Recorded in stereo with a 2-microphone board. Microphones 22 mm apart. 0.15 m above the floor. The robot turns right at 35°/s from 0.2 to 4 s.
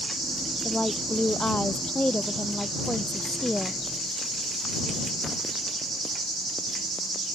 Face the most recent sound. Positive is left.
turn(degrees=155)